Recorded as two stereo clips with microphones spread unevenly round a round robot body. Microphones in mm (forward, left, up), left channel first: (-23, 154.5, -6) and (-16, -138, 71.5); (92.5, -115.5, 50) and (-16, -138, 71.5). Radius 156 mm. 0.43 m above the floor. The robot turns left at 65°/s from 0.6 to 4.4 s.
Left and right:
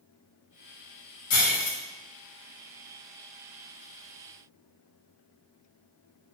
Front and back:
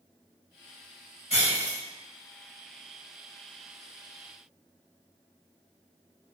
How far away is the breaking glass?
About 1.6 m.